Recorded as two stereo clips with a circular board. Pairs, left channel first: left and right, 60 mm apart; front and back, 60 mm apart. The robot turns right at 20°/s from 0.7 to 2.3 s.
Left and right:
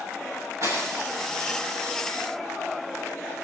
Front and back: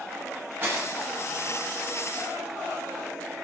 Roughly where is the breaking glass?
Behind right.